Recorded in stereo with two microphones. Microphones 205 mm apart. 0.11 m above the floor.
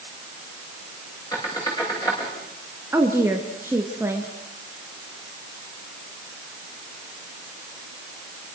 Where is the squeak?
15° left (ahead or behind), 6 m.